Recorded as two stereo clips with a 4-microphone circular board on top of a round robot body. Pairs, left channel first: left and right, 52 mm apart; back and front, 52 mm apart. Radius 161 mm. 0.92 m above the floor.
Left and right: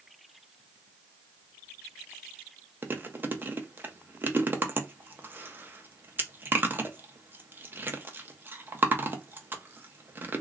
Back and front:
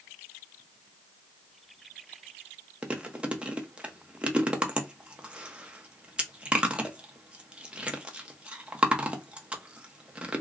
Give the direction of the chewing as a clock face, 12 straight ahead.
2 o'clock.